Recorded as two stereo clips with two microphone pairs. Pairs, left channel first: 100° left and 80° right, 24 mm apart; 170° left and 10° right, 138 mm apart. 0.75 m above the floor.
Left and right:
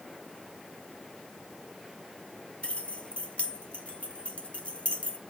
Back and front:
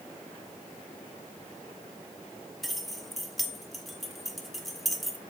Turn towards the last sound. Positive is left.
turn(degrees=75)